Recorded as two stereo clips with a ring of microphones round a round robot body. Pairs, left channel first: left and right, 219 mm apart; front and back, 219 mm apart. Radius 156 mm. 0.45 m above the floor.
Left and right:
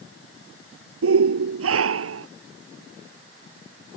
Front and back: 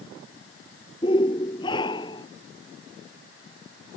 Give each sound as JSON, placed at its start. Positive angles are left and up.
{"t": 1.0, "sound": "a shout", "azimuth_deg": -75}